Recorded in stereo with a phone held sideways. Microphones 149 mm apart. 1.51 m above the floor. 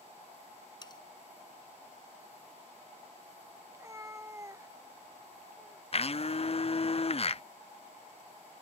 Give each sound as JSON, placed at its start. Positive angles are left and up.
{"t": 0.8, "sound": "cutlery clinking", "side_deg": 30}
{"t": 3.7, "sound": "a cat meowing", "side_deg": -20}
{"t": 5.9, "sound": "a blender", "side_deg": 45}